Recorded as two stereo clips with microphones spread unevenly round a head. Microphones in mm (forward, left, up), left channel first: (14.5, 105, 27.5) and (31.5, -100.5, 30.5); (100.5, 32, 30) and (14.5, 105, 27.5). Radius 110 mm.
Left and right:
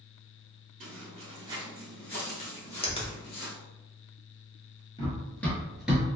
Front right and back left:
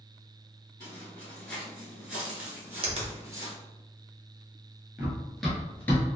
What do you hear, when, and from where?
0.8 s footsteps: 105° right, 1.2 m; by 3.5 s 85° left, 1.4 m
2.8 s a finger snap: 155° left, 0.7 m
5.0 s running footsteps: 80° left, 1.0 m; by 6.2 s 20° right, 1.0 m